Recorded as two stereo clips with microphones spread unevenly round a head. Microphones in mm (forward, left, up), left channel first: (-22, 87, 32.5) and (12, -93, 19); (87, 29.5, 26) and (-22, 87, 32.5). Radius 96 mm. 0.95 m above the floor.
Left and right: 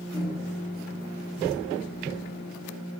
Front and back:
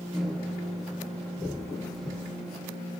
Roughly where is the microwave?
Ahead left.